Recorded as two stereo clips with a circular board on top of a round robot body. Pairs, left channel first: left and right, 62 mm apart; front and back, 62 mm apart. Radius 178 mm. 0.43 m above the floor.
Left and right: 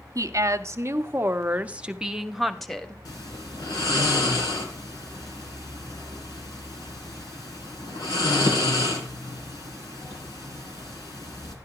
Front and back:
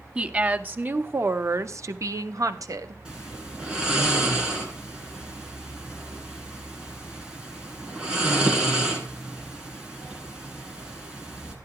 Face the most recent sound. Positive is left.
turn(degrees=105)